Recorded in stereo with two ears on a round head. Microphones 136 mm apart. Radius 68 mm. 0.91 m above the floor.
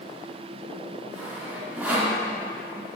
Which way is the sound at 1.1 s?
10° right (ahead or behind).